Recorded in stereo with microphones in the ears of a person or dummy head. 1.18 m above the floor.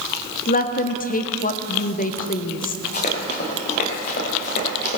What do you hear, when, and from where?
0.5 s a woman speaking: 40° left (ahead or behind), 0.8 m
2.9 s running footsteps: 40° left (ahead or behind), 6 m; by 5.0 s 50° left (ahead or behind), 6.5 m